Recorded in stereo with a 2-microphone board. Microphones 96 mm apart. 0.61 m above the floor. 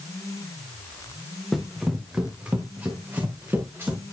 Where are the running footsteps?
Centre (ahead or behind), 2.5 m; by 4.0 s 25° right (ahead or behind), 5.5 m.